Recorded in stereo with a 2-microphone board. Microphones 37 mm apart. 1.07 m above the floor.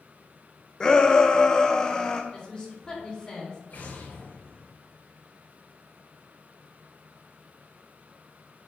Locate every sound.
0.8 s a shout: 20° left (ahead or behind), 0.8 m
2.3 s a woman speaking: 25° left (ahead or behind), 4 m
3.7 s an explosion: 55° left (ahead or behind), 4.5 m